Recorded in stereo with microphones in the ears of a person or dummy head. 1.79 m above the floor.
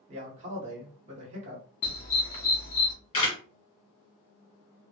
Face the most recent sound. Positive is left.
turn(degrees=25)  # may be behind; listen again after turning